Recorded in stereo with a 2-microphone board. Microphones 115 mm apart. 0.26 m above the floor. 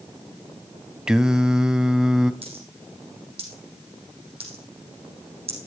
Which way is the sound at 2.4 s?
60° right (ahead or behind).